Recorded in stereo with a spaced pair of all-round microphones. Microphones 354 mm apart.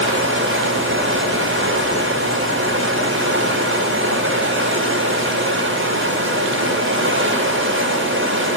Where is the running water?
35° right (ahead or behind), 8.5 m.